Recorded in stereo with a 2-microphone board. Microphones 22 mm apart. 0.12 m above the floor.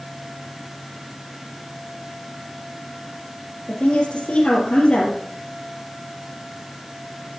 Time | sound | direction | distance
3.7 | a woman speaking | 65° left (ahead or behind) | 3 m